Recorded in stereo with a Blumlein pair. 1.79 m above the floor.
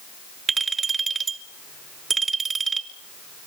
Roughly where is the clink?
Ahead.